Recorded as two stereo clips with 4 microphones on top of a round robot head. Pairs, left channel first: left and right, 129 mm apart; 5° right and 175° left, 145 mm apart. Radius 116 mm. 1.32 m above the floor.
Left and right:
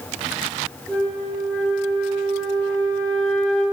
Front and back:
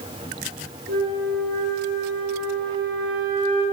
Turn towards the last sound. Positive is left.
turn(degrees=170)